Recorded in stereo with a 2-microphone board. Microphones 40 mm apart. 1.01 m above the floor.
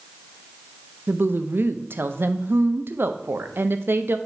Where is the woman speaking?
65° right (ahead or behind), 0.6 m.